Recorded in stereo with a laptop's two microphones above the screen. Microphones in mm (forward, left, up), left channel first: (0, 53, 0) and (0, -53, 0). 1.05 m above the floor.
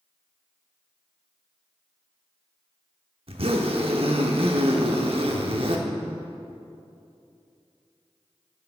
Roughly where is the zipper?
Right.